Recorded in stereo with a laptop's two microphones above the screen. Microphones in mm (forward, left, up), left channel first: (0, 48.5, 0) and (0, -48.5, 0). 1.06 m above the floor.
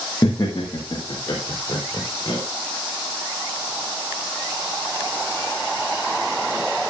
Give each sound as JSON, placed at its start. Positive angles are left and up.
{"t": 0.2, "sound": "laughter", "side_deg": 40, "distance_m": 1.3}